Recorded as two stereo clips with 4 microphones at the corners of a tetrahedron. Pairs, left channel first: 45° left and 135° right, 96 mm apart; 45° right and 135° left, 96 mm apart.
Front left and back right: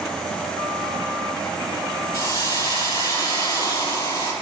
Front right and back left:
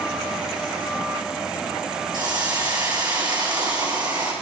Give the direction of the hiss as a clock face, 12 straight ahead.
9 o'clock.